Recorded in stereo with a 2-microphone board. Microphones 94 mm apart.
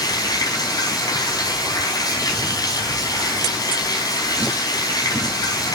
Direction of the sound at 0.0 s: 40° left (ahead or behind).